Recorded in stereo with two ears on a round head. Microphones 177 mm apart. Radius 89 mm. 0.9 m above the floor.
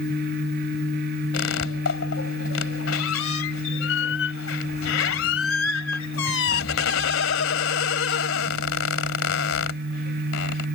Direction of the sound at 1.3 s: 75° left (ahead or behind).